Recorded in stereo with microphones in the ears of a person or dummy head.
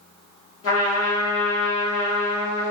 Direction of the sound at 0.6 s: 65° left (ahead or behind).